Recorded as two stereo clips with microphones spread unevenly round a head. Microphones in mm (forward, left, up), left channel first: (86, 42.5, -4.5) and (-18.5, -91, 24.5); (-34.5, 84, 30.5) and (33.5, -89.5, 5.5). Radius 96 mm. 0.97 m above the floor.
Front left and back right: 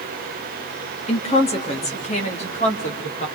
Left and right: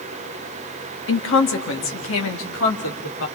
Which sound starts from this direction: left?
A woman speaking, at 1.1 s.